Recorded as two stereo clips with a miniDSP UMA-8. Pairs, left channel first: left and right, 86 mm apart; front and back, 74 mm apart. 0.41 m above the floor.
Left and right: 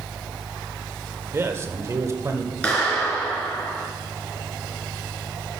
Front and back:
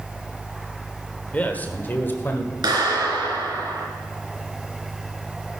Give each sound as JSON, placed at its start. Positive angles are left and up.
{"t": 1.3, "sound": "a man speaking", "azimuth_deg": -55, "distance_m": 1.3}
{"t": 2.6, "sound": "a clap", "azimuth_deg": 165, "distance_m": 4.0}